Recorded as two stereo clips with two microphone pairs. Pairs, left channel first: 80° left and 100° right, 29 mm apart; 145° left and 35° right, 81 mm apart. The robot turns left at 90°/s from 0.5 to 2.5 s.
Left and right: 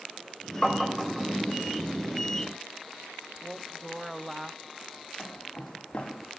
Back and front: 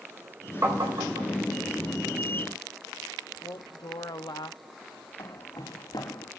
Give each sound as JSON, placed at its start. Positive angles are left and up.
{"t": 0.6, "sound": "tapping", "azimuth_deg": 15, "distance_m": 4.5}
{"t": 3.4, "sound": "a woman speaking", "azimuth_deg": 175, "distance_m": 1.1}
{"t": 5.2, "sound": "footsteps", "azimuth_deg": 135, "distance_m": 5.5}